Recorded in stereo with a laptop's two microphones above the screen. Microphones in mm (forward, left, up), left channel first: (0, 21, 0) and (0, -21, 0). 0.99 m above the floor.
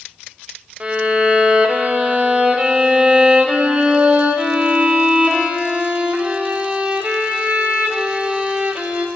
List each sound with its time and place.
0.8 s a violin: 25° right (ahead or behind), 0.5 m